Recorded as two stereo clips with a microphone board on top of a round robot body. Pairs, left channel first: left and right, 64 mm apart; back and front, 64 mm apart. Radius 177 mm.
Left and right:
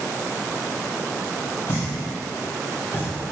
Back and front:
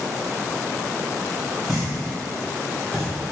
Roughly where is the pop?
Left.